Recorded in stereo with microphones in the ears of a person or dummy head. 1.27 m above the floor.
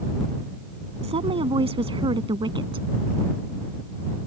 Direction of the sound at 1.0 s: 30° right (ahead or behind).